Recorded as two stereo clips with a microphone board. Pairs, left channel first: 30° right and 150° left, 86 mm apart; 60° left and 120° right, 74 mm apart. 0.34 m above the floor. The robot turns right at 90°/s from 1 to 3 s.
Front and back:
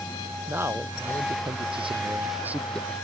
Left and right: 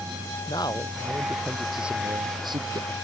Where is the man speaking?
85° left; by 2.9 s 100° right.